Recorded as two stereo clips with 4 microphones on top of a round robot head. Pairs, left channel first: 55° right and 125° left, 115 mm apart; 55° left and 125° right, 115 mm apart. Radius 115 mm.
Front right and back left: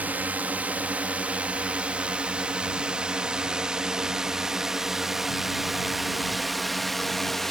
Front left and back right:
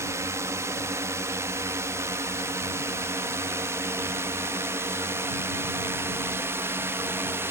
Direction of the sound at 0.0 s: 170° right.